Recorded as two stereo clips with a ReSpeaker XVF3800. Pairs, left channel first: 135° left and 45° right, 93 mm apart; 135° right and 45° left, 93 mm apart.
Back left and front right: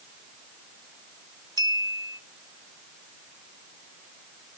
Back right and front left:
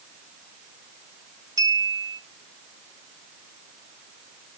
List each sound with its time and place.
1.6 s a clink: 5° right, 1.4 m